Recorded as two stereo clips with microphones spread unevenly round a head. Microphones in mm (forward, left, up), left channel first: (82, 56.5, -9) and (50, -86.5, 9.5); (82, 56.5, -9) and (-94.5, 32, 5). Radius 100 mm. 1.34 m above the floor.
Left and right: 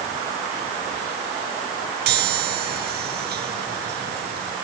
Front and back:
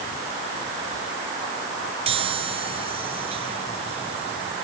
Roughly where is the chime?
Right.